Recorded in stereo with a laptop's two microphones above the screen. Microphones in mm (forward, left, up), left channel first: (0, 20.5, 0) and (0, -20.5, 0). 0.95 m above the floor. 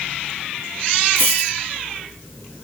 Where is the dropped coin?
65° right (ahead or behind), 3 m.